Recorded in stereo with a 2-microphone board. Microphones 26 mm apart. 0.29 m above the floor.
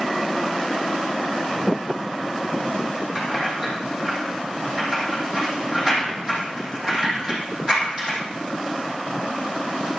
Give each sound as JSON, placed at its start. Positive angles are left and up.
{"t": 3.1, "sound": "keys jangling", "side_deg": -30, "distance_m": 7.0}